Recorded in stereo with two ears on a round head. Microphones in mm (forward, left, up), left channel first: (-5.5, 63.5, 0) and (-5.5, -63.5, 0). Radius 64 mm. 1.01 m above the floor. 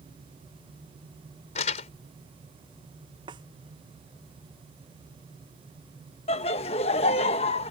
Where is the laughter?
40° left (ahead or behind).